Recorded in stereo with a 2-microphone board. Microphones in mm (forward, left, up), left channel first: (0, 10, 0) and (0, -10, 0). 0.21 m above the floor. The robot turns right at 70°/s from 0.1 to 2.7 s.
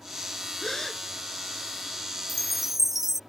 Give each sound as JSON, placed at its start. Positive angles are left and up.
{"t": 0.6, "sound": "a gasp", "azimuth_deg": 135}
{"t": 2.3, "sound": "a chime", "side_deg": 5}